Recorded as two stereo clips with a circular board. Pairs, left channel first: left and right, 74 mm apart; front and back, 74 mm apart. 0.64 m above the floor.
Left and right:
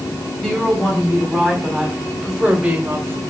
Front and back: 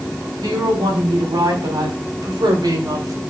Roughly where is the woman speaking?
Behind.